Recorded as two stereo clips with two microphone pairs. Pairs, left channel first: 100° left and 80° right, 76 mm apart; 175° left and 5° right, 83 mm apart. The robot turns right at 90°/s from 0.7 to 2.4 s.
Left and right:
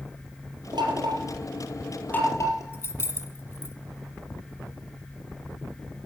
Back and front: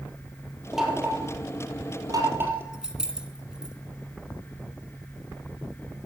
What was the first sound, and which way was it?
Knocking, 90° right.